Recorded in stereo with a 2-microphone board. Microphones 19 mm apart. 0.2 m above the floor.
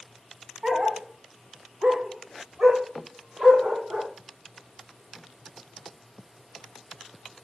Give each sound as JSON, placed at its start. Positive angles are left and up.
{"t": 0.6, "sound": "a dog barking", "side_deg": -30, "distance_m": 1.5}